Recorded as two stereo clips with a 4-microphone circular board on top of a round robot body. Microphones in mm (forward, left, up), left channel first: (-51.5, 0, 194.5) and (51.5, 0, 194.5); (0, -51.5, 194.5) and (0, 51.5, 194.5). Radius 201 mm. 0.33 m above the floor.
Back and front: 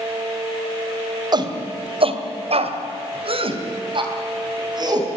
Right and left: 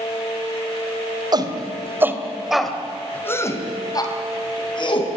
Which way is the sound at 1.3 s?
45° left.